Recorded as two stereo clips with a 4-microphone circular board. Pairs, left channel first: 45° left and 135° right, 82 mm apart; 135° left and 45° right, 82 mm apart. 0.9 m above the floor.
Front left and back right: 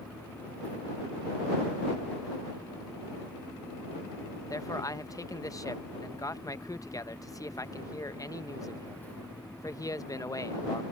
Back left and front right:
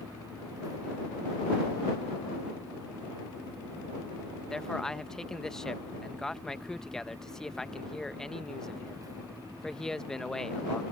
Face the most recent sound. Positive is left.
turn(degrees=55)